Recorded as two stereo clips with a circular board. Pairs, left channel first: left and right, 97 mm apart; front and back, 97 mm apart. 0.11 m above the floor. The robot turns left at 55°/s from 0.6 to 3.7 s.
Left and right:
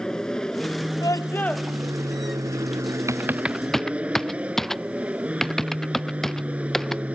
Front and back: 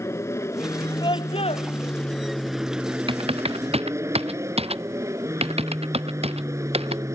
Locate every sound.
0.0 s an aircraft: 15° left; by 7.2 s 155° right
1.0 s a scream: 40° left; by 1.7 s 5° left
3.1 s typing on a keyboard: 150° right; by 7.2 s 175° left